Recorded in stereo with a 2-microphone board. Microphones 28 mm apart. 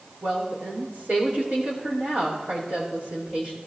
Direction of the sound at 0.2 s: 60° right (ahead or behind).